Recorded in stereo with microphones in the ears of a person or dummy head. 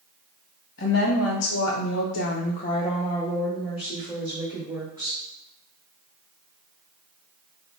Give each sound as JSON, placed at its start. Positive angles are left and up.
{"t": 0.8, "sound": "a woman speaking", "side_deg": 55, "distance_m": 1.3}